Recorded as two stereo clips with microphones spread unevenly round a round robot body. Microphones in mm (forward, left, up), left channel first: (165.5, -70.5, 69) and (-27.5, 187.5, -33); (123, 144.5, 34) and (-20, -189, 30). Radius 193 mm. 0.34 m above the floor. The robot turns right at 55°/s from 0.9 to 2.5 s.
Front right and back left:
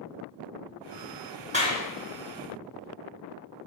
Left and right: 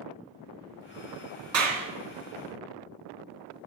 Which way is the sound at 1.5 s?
165° right.